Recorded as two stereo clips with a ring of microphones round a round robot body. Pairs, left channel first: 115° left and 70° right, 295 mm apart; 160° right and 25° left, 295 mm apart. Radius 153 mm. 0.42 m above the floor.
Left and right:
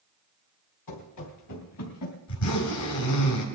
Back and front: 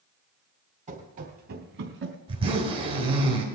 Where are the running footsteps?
90° left, 3.5 m; by 2.2 s 70° left, 2.5 m.